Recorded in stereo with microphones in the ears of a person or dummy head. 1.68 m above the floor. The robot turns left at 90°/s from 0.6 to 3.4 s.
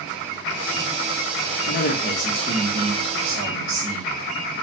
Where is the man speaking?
70° left, 1.0 m; by 4.6 s 85° right, 1.0 m.